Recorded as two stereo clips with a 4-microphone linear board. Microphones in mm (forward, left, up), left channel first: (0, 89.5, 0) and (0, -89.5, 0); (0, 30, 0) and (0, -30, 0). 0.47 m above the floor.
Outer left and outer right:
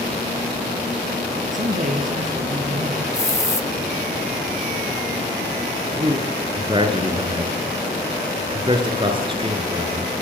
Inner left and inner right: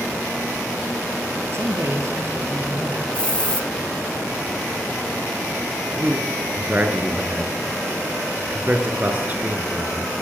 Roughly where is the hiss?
Centre.